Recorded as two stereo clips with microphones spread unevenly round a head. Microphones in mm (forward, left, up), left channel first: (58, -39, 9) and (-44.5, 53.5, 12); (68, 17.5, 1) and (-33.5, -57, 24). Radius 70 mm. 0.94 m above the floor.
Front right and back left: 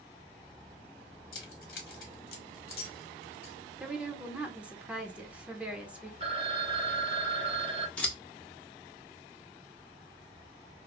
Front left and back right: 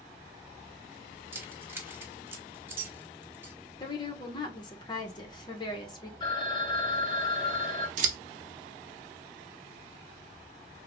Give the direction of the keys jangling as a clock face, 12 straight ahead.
2 o'clock.